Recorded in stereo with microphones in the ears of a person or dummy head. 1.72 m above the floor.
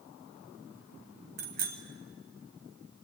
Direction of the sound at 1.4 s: 50° right (ahead or behind).